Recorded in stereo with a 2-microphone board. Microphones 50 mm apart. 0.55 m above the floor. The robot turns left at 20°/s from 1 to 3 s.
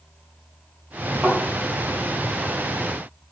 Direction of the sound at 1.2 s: 25° right (ahead or behind).